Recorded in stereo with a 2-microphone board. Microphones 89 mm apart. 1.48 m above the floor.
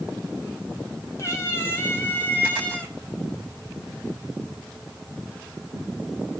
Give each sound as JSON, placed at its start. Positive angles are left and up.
{"t": 1.2, "sound": "a cat meowing", "side_deg": 30, "distance_m": 4.0}